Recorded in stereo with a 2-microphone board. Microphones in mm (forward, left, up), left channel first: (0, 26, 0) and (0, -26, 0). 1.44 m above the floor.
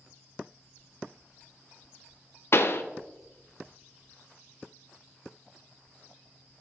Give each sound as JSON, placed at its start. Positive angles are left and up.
{"t": 2.5, "sound": "a pop", "side_deg": 55, "distance_m": 0.5}